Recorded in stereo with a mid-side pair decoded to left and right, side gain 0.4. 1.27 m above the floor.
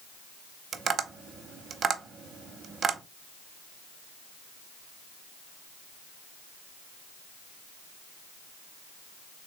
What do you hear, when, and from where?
0.7 s tapping: 55° right, 0.9 m